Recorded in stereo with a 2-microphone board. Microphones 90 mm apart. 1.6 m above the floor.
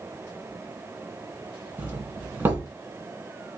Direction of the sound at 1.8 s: 25° right (ahead or behind).